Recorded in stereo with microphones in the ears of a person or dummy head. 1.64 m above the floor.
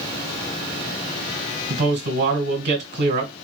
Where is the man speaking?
50° right (ahead or behind), 1.6 m.